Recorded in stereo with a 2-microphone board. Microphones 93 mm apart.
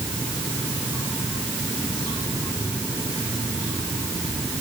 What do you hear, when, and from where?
Only background noise.